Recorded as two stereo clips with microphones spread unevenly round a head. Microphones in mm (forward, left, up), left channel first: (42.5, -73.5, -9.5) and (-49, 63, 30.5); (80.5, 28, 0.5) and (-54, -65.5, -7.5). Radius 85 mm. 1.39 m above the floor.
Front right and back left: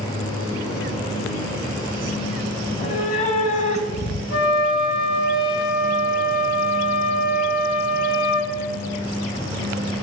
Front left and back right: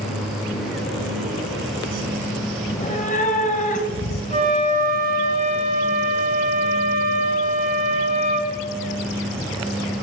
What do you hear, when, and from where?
2.7 s a cat meowing: straight ahead, 2.5 m
4.3 s a flute: 90° right, 6 m